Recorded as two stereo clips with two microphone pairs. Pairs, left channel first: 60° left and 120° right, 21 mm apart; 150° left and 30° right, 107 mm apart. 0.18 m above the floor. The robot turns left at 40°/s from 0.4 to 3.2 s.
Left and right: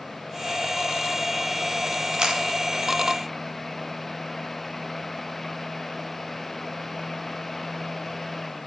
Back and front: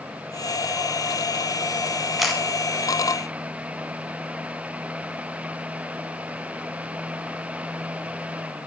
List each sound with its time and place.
2.2 s a camera shutter: 115° right, 1.1 m; by 2.4 s 120° right, 1.1 m